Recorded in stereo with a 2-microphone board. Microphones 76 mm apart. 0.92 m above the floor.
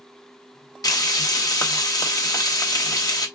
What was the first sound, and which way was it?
Frying, 55° left (ahead or behind).